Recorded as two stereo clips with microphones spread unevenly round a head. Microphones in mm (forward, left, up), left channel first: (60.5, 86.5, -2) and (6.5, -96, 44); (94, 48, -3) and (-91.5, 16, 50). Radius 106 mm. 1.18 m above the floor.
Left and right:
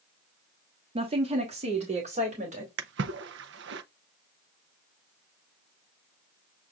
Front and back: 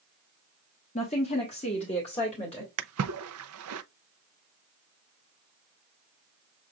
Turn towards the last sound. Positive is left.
turn(degrees=-145)